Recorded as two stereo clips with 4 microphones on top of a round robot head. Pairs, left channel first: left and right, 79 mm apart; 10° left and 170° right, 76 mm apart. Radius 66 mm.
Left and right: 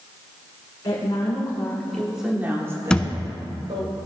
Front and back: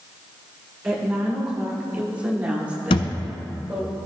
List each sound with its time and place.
0.8 s a woman speaking: 115° left, 1.9 m; by 3.9 s 85° right, 2.5 m
2.9 s a thud: 10° left, 0.6 m